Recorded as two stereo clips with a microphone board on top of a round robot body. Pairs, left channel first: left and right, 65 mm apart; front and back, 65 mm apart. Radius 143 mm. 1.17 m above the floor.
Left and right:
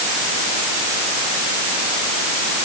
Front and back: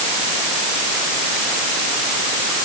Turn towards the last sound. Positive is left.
No sound to turn to.